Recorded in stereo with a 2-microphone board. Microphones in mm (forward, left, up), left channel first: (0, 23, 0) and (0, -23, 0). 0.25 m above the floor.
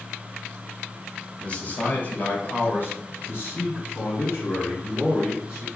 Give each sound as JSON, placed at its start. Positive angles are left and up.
{"t": 1.4, "sound": "a man speaking", "side_deg": 25, "distance_m": 1.2}